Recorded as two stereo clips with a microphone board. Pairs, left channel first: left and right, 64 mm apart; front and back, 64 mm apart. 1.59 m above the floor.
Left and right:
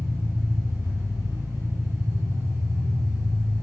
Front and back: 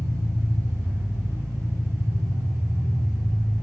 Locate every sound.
0.0 s an engine running: 140° right, 5 m